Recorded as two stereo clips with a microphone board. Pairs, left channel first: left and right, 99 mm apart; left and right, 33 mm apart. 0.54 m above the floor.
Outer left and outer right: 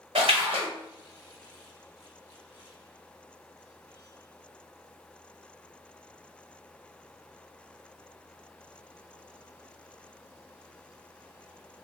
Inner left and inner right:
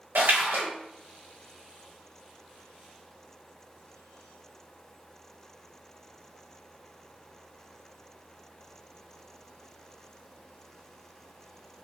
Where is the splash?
75° right (ahead or behind), 0.8 m.